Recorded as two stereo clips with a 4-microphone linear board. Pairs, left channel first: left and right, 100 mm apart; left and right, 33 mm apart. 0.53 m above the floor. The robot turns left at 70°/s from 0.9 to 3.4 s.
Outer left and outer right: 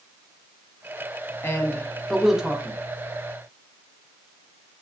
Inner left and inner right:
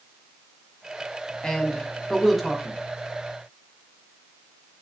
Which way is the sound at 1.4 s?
25° left (ahead or behind).